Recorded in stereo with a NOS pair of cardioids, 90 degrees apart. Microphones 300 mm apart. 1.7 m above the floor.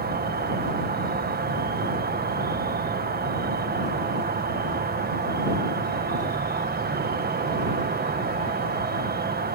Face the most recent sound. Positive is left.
turn(degrees=-30)